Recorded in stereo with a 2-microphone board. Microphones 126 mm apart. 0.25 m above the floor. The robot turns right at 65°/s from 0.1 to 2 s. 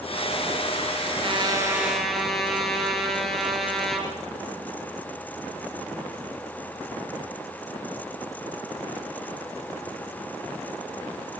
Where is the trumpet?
50° right, 4 m; by 4.1 s straight ahead, 4 m.